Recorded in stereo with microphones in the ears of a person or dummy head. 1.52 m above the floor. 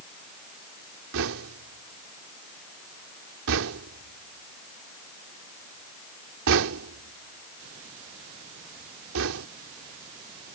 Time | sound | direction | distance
1.1 | knocking | 80° right | ?